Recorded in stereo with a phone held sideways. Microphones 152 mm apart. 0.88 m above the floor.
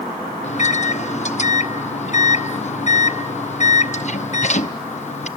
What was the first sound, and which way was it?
A microwave, 50° left (ahead or behind).